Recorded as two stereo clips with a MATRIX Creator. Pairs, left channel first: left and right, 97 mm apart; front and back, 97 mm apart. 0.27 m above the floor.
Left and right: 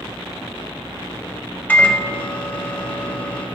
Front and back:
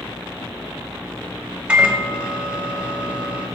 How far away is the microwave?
About 1.0 m.